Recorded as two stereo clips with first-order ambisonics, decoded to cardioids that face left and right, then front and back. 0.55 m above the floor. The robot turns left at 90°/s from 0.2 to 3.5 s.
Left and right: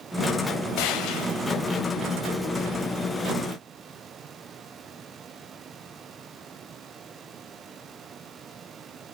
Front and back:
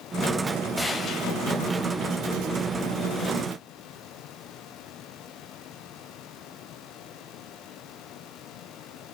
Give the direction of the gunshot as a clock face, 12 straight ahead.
9 o'clock.